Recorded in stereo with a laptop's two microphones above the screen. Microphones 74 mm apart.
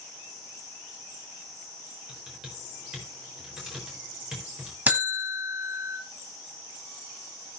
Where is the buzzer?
25° right (ahead or behind), 1.5 m.